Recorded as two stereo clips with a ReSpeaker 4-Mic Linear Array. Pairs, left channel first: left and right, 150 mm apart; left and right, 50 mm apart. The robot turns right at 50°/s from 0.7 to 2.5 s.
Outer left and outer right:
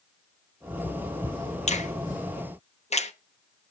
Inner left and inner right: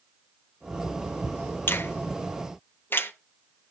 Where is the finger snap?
50° left (ahead or behind), 0.8 m; by 3.1 s 45° left (ahead or behind), 0.8 m.